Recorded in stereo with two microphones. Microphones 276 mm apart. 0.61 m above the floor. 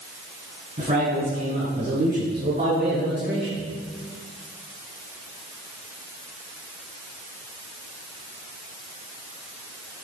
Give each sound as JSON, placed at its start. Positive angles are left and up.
{"t": 0.8, "sound": "a man speaking", "side_deg": -25, "distance_m": 5.0}